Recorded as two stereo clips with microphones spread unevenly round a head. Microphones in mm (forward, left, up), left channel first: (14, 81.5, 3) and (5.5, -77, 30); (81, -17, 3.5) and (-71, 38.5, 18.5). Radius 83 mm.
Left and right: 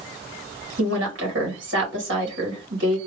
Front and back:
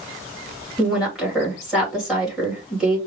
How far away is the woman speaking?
About 2.5 m.